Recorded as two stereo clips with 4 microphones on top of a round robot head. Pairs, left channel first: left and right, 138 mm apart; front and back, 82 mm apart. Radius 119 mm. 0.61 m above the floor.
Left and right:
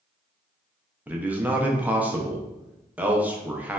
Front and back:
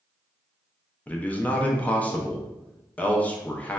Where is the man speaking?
30° right, 0.6 m.